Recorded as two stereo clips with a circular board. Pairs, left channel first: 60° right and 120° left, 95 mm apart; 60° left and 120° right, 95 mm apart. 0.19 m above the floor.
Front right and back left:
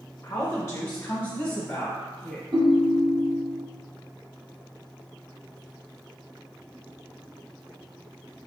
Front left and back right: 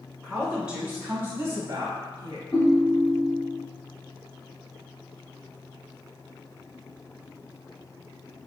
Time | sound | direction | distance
0.2 | a woman speaking | 20° right | 1.1 m
2.5 | a ringtone | 100° left | 1.1 m